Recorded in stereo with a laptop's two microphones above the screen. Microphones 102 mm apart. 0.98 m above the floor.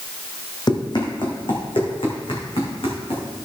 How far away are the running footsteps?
About 1.9 m.